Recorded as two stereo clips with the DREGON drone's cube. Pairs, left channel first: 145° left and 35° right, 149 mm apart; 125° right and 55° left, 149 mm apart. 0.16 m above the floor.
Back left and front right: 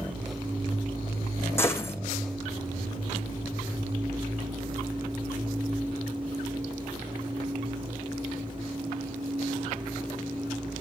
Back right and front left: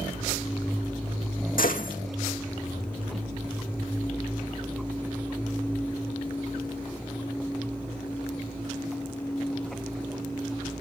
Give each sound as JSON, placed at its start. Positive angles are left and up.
{"t": 1.6, "sound": "a gunshot", "azimuth_deg": -140, "distance_m": 1.9}